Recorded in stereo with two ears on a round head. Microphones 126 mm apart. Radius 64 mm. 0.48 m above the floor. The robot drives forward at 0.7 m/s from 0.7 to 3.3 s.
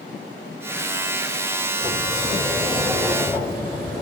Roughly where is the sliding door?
Centre.